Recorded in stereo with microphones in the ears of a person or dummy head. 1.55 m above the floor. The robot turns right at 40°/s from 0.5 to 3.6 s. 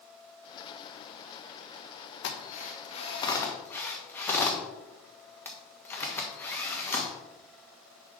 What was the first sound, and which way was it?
A drill, 70° left (ahead or behind).